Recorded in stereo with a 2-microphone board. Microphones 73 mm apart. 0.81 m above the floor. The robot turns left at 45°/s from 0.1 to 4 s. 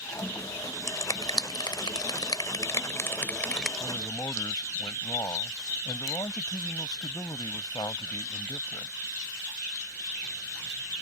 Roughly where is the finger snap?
Left.